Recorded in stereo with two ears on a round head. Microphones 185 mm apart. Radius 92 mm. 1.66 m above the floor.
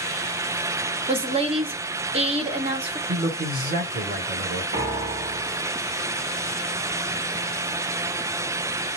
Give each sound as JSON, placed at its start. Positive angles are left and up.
{"t": 1.1, "sound": "a woman speaking", "side_deg": -30, "distance_m": 1.0}
{"t": 3.1, "sound": "a man speaking", "side_deg": -50, "distance_m": 1.7}
{"t": 4.7, "sound": "a piano", "side_deg": -40, "distance_m": 1.5}